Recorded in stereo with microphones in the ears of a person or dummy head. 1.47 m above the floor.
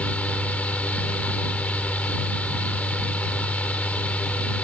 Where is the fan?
5° left (ahead or behind).